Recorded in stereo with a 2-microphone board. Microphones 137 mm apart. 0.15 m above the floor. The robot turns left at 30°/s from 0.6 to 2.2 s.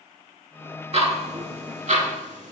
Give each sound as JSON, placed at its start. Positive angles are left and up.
{"t": 0.9, "sound": "ticking", "side_deg": -45, "distance_m": 0.5}